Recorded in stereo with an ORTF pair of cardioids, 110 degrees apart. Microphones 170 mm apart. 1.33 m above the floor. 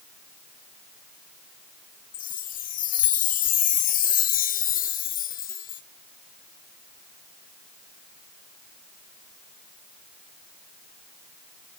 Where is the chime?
50° left, 0.9 m.